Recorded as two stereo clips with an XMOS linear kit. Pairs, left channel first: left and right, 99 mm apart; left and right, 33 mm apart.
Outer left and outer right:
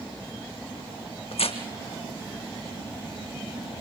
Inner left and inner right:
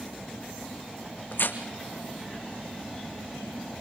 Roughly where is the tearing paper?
Left.